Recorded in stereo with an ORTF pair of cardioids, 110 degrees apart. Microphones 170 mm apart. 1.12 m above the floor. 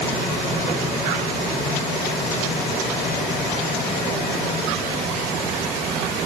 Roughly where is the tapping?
No tapping in this recording.